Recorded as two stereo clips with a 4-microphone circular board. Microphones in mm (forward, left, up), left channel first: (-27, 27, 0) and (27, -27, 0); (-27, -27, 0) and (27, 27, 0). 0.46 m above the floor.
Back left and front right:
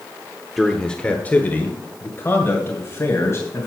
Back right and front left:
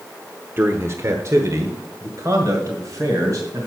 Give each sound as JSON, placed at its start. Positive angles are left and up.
{"t": 0.6, "sound": "a man speaking", "azimuth_deg": 45, "distance_m": 0.9}